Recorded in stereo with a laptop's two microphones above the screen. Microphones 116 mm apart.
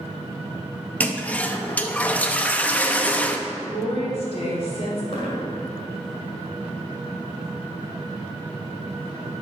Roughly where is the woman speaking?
Left.